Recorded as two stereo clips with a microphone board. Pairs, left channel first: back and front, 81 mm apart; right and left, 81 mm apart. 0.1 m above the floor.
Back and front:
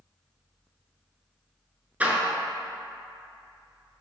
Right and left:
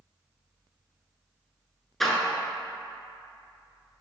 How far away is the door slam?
About 0.8 m.